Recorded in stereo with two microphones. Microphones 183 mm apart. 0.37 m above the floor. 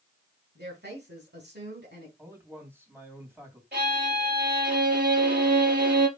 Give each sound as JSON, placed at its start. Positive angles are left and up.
{"t": 0.6, "sound": "a woman speaking", "side_deg": -70, "distance_m": 3.5}
{"t": 2.2, "sound": "a man speaking", "side_deg": -10, "distance_m": 3.0}
{"t": 3.7, "sound": "a violin", "side_deg": -60, "distance_m": 4.0}